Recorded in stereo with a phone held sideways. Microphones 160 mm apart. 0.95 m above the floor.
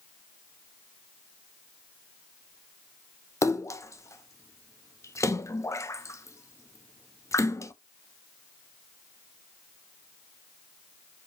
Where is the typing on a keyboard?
I don't hear typing on a keyboard.